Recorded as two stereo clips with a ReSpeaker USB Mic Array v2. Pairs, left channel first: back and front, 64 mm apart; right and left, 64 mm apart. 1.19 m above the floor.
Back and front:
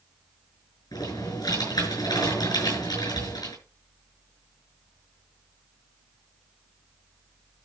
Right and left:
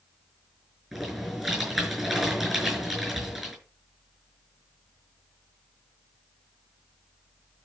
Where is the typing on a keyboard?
175° left, 6.5 m.